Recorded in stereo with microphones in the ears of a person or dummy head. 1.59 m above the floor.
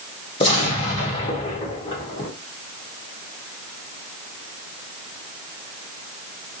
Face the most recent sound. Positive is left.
turn(degrees=25)  # may be behind; listen again after turning